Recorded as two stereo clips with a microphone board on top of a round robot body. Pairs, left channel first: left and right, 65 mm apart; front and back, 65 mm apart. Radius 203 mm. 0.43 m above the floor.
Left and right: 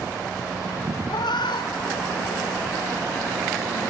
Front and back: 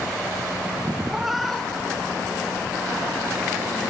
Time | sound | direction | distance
1.1 | a cat meowing | 100° left | 1.1 m